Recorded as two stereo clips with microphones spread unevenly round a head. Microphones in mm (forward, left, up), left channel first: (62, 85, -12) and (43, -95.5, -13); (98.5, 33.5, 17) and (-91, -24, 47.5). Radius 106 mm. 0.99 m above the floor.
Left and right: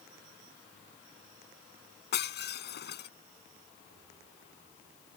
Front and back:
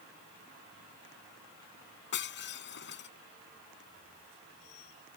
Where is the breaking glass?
55° left.